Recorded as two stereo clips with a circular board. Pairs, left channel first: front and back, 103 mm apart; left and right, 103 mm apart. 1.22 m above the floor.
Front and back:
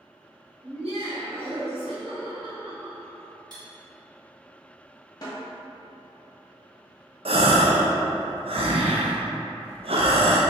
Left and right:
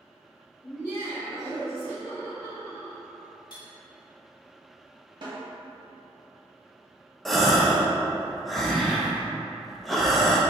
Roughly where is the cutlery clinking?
Behind left.